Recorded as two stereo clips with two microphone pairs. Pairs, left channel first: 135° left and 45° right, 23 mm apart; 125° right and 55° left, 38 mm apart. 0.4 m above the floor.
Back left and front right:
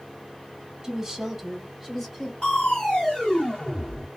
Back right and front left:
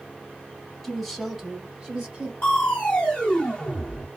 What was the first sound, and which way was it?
A woman speaking, 65° right.